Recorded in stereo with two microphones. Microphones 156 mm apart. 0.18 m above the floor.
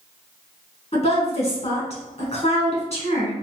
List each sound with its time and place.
0.9 s a woman speaking: 45° left (ahead or behind), 1.6 m